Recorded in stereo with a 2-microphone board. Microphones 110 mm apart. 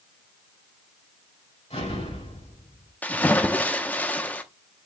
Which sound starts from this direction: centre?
A splash, at 3.0 s.